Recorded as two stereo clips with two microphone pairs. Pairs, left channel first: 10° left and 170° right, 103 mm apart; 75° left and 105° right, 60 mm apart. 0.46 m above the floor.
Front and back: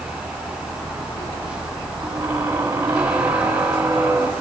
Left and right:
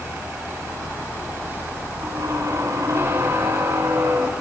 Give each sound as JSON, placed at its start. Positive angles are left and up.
{"t": 2.0, "sound": "a squeak", "azimuth_deg": -105, "distance_m": 1.9}